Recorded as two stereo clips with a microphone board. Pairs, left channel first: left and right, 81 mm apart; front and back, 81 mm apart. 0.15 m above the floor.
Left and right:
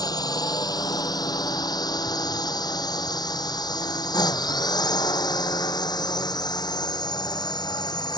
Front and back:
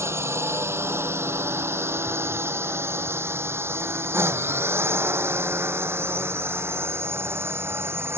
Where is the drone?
125° left; by 8.2 s 120° left.